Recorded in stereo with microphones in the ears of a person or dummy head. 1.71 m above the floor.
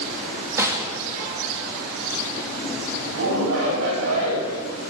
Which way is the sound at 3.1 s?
85° right.